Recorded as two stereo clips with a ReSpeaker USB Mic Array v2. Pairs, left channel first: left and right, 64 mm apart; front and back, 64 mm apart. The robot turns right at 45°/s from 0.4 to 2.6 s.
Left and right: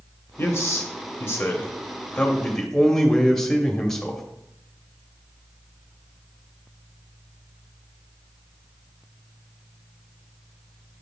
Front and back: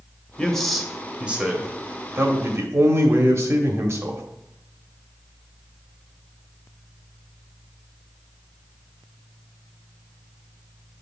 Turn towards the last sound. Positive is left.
turn(degrees=170)